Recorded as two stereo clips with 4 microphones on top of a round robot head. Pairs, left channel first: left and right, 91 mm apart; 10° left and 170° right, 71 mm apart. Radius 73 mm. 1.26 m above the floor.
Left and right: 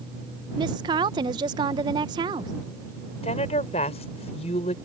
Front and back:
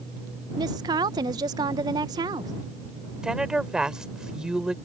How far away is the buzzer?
I don't hear a buzzer.